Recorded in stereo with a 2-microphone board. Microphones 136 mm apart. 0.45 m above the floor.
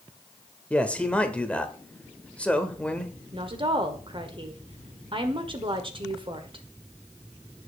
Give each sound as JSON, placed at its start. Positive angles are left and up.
{"t": 0.7, "sound": "a man speaking", "side_deg": 10, "distance_m": 1.4}
{"t": 3.3, "sound": "a woman speaking", "side_deg": -40, "distance_m": 1.7}